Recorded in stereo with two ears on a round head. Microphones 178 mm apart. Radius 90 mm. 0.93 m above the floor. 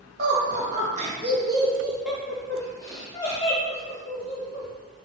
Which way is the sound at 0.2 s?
50° right (ahead or behind).